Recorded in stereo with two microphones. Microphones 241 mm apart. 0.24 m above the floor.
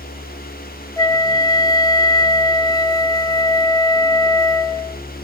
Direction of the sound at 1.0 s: 15° left (ahead or behind).